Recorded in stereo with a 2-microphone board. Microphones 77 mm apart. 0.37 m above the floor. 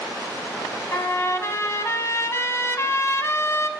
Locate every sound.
0.9 s a trumpet: 35° left (ahead or behind), 1.0 m